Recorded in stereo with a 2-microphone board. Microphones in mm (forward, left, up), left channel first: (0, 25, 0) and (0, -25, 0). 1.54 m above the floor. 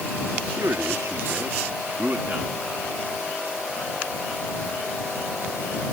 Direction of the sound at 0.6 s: 65° right (ahead or behind).